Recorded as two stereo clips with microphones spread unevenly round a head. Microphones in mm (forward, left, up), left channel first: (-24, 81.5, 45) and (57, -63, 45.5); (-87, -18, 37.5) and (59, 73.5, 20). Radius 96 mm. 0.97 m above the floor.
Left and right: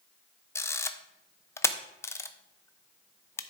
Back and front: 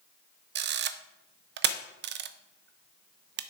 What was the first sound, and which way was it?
A camera shutter, 45° left.